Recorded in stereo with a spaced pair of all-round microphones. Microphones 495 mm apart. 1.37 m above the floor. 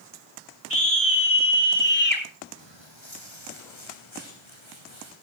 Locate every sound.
0.7 s a scream: 30° left (ahead or behind), 5.5 m; by 2.2 s 20° left (ahead or behind), 5 m
2.6 s footsteps: 65° left (ahead or behind), 3 m; by 5.1 s 75° left (ahead or behind), 6.5 m